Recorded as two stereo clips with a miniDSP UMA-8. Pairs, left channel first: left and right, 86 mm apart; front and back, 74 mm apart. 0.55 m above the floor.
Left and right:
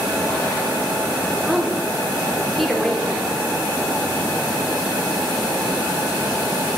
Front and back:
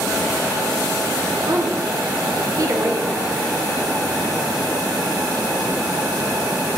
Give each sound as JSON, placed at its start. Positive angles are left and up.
{"t": 1.5, "sound": "a woman speaking", "azimuth_deg": 180, "distance_m": 1.3}